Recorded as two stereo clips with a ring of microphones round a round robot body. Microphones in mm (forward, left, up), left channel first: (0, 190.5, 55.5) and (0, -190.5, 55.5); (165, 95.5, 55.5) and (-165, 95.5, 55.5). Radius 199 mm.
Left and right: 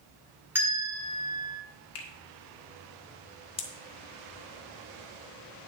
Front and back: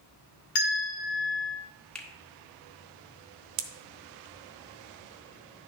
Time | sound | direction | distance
0.6 | a bell | 5° right | 1.4 m
1.9 | a finger snap | 85° left | 1.6 m
3.6 | a pop | 165° left | 0.7 m